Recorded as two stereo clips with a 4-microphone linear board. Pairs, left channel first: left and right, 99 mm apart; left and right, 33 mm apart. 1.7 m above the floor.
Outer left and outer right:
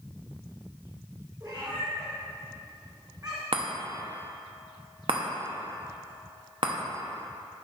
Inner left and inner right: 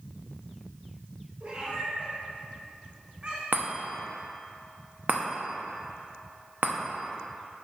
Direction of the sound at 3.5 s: 60° right (ahead or behind).